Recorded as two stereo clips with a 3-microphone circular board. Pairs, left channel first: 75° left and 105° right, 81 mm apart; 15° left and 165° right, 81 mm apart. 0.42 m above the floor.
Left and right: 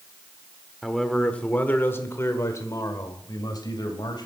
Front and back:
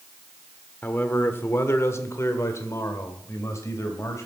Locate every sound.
0.8 s a man speaking: 15° right, 1.4 m; by 4.3 s 65° left, 2.5 m